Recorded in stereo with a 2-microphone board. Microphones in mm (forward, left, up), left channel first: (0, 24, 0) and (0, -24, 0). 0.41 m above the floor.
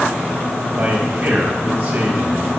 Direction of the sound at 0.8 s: 30° right (ahead or behind).